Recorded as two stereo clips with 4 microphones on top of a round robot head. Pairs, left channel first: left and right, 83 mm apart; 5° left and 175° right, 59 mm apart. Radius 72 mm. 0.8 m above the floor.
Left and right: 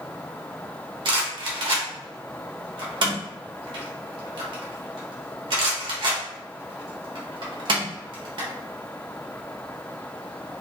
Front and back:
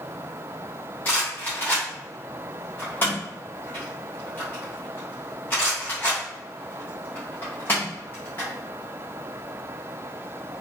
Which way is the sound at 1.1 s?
65° right.